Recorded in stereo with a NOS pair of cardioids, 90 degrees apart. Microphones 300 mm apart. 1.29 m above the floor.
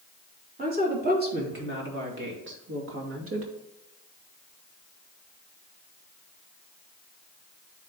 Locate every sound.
0.6 s a woman speaking: 30° right, 3.5 m; by 3.5 s 50° right, 2 m